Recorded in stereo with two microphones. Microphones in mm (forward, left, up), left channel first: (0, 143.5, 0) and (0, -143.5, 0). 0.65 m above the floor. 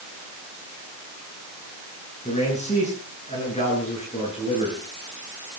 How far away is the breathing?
No breathing in this recording.